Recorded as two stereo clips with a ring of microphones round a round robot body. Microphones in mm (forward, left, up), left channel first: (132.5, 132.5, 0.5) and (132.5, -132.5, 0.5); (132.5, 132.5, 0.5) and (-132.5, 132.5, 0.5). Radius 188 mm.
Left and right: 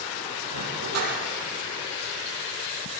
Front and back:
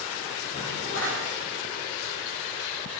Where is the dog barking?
70° right, 8 m.